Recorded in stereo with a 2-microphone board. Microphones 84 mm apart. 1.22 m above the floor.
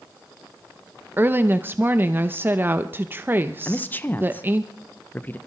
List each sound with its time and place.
1.2 s a woman speaking: 25° right (ahead or behind), 0.8 m
3.6 s a man speaking: 20° left (ahead or behind), 0.8 m